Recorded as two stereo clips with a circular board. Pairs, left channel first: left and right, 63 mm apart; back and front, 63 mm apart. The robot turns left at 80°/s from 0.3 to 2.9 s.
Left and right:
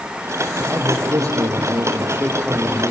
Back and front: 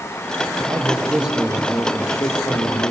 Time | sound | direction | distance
0.6 | a man speaking | 25° right | 5.5 m